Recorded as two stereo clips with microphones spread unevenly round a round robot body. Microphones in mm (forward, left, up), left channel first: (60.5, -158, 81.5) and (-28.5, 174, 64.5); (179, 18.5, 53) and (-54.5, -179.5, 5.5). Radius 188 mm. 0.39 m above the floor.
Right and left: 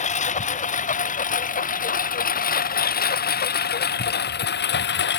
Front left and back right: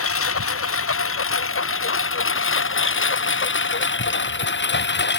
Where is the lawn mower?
5° right; by 5.2 s 15° right.